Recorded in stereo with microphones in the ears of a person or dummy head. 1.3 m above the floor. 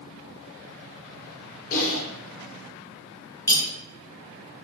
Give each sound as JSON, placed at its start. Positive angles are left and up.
{"t": 1.7, "sound": "typing on a keyboard", "side_deg": 40, "distance_m": 0.7}
{"t": 3.5, "sound": "cutlery clinking", "side_deg": 15, "distance_m": 0.7}